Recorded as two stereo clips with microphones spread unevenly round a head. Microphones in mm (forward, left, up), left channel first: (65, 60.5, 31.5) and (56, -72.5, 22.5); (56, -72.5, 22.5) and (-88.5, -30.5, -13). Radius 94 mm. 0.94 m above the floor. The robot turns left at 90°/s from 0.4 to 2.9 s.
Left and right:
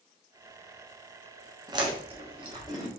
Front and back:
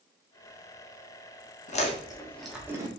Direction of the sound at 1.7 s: 50° right.